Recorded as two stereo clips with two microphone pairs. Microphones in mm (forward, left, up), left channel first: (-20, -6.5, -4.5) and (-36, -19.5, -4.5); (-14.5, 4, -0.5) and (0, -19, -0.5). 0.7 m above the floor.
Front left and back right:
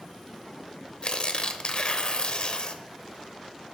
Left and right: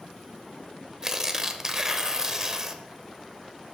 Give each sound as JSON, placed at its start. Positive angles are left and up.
{"t": 1.0, "sound": "tearing paper", "azimuth_deg": 10, "distance_m": 0.7}